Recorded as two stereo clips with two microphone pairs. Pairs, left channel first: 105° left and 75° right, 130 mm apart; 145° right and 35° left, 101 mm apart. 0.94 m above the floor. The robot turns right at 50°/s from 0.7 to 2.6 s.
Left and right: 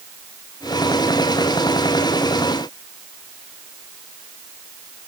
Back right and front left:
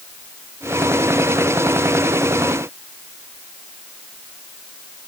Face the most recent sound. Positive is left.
No sound to turn to.